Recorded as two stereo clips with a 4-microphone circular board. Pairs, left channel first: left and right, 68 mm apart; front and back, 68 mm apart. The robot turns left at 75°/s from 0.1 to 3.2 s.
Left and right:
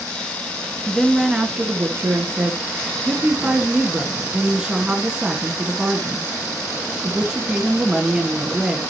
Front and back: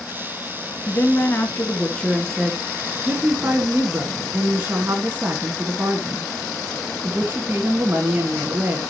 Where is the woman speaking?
15° left, 1.8 m; by 8.8 s 160° right, 1.8 m.